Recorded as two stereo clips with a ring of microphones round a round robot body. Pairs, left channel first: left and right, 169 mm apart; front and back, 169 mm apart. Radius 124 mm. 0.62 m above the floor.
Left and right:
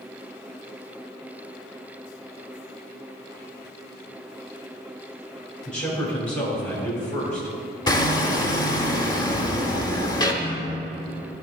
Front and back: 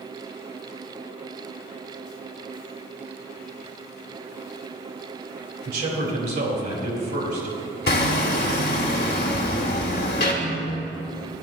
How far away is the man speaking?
About 2 m.